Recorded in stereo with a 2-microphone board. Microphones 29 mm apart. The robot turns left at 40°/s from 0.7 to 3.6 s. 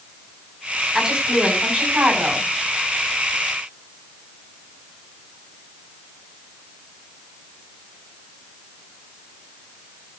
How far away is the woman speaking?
About 6 m.